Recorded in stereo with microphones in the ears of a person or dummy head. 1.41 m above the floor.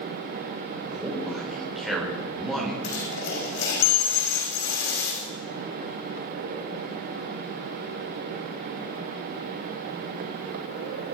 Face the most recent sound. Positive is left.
turn(degrees=75)  # may be behind; listen again after turning